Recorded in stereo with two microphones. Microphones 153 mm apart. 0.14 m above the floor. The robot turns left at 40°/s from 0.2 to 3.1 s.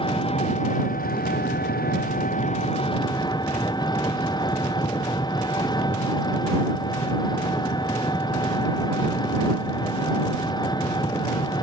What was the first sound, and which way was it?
An engine running, 145° left.